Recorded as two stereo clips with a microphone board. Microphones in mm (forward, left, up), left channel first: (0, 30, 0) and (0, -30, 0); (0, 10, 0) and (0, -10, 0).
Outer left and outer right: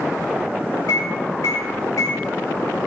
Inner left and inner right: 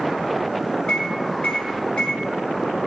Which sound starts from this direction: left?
A microwave, at 0.9 s.